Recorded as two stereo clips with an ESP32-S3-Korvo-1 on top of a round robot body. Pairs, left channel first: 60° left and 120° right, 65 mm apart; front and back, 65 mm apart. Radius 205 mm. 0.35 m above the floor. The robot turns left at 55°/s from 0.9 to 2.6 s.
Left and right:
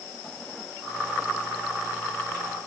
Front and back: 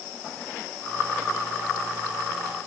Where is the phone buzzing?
No phone buzzing in this recording.